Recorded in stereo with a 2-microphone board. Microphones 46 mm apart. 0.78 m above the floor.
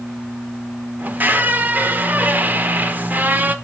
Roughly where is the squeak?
Right.